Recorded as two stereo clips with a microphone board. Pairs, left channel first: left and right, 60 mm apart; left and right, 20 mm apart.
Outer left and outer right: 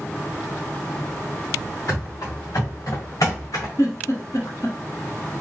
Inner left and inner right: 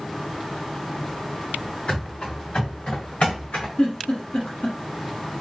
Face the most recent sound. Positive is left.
turn(degrees=60)  # may be behind; listen again after turning